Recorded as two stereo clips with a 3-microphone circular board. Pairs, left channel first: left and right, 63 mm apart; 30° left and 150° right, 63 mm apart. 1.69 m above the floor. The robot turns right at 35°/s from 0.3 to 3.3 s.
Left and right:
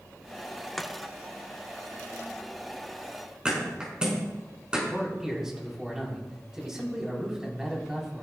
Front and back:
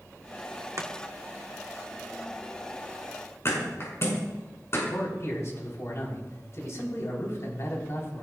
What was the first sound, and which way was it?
Chopping, 175° left.